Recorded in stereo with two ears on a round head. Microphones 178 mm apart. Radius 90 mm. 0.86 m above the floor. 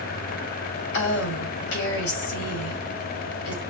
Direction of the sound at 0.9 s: 65° left (ahead or behind).